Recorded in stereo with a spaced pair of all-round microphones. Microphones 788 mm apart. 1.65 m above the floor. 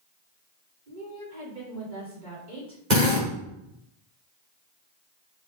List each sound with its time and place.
0.9 s a woman speaking: 75° right (ahead or behind), 5 m
2.9 s a drill: 65° right (ahead or behind), 5 m